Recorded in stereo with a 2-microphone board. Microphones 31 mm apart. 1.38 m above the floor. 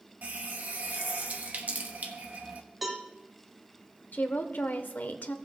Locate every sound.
0.2 s a running tap: 55° right (ahead or behind), 1.0 m
2.8 s a cowbell: 5° right (ahead or behind), 1.8 m
4.1 s a woman speaking: 70° left (ahead or behind), 0.9 m